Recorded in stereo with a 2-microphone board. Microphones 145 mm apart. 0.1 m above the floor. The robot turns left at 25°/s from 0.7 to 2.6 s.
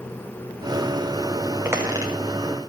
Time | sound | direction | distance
1.6 | a squeak | 15° right (ahead or behind) | 3 m